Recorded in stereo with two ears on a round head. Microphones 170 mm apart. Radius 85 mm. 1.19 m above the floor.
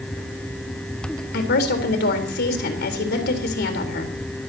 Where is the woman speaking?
60° left (ahead or behind), 4 m.